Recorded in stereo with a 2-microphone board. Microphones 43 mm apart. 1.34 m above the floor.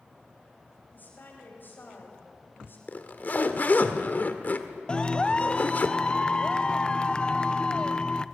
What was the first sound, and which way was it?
A woman speaking, 45° left (ahead or behind).